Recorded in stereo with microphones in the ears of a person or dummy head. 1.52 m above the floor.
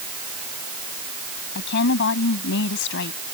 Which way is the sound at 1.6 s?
60° left (ahead or behind).